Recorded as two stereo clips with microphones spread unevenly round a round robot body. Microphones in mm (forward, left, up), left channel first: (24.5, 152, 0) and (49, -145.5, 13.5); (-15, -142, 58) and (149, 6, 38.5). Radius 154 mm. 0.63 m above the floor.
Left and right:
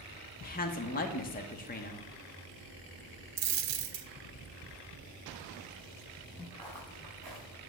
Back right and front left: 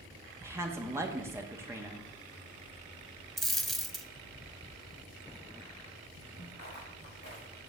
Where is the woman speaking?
100° left, 0.7 m.